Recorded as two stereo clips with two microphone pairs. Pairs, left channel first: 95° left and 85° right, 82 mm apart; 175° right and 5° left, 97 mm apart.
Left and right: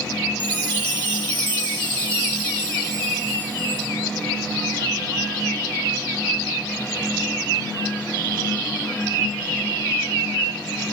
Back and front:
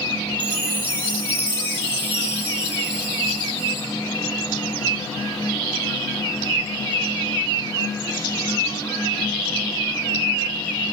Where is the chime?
75° left, 7.5 m.